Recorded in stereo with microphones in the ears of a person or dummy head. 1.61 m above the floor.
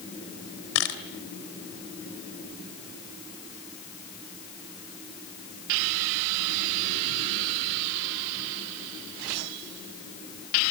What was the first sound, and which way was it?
A camera shutter, 70° left (ahead or behind).